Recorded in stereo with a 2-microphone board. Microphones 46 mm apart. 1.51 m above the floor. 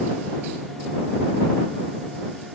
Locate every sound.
Only background noise.